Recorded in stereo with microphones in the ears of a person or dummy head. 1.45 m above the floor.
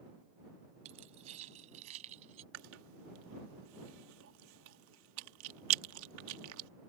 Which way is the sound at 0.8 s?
35° right (ahead or behind).